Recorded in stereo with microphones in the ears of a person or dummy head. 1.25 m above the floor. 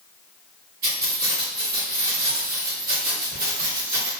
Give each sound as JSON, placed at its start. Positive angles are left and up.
{"t": 0.8, "sound": "keys jangling", "side_deg": -50, "distance_m": 1.6}